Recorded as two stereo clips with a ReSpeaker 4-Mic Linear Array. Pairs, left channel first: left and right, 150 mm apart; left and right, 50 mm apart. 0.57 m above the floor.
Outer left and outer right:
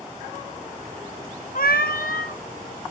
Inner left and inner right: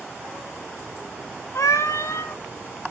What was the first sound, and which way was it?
A cat meowing, 80° left.